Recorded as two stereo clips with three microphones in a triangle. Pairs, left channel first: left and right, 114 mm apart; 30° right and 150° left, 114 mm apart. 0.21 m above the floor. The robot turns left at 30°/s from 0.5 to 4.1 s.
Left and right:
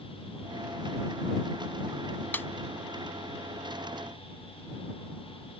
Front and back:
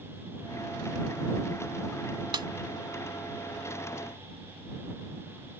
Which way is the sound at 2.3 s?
155° left.